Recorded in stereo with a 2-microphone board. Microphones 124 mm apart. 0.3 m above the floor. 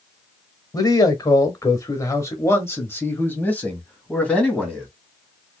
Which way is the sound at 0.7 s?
30° left (ahead or behind).